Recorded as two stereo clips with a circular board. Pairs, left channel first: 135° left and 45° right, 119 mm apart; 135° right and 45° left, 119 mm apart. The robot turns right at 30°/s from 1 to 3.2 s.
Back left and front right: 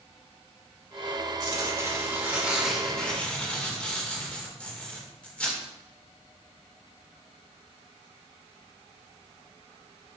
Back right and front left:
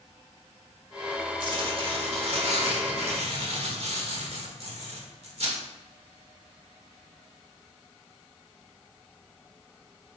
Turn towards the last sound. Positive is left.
turn(degrees=60)